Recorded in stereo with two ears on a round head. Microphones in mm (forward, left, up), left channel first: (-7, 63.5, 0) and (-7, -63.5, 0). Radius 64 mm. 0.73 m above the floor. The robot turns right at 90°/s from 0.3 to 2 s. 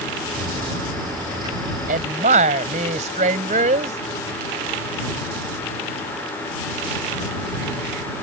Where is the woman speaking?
60° right (ahead or behind); by 4.0 s 50° right (ahead or behind).